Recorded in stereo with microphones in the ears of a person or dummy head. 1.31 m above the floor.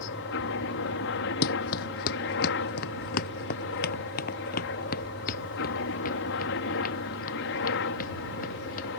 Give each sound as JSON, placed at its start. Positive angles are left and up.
{"t": 0.0, "sound": "a helicopter", "side_deg": 60}
{"t": 1.4, "sound": "running footsteps", "side_deg": 50}